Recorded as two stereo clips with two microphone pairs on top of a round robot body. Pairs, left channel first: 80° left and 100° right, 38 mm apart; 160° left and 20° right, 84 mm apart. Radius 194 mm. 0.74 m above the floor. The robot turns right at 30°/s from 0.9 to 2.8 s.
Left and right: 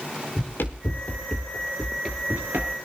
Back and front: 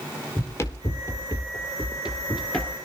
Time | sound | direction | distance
0.4 | running footsteps | 100° left | 1.4 m